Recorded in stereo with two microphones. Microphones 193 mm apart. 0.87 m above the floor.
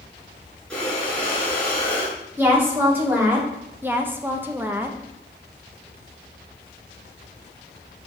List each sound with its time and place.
0.7 s breathing: 5° left (ahead or behind), 4.5 m
2.4 s a woman speaking: 10° right (ahead or behind), 2.5 m
3.8 s a woman speaking: 10° right (ahead or behind), 0.8 m